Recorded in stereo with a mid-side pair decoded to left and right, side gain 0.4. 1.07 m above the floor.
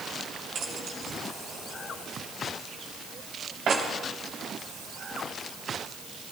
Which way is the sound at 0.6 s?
65° right.